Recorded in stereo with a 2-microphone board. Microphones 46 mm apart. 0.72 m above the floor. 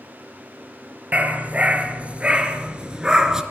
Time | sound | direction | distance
1.1 | a dog barking | 35° right (ahead or behind) | 3.5 m